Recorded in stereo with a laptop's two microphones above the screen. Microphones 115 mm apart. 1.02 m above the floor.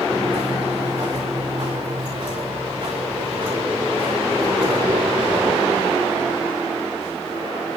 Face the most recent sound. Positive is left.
turn(degrees=-45)  # may be behind; listen again after turning